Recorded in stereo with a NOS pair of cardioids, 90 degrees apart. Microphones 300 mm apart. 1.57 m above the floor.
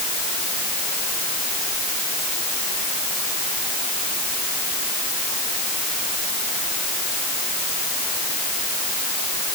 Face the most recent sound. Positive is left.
No sound to turn to.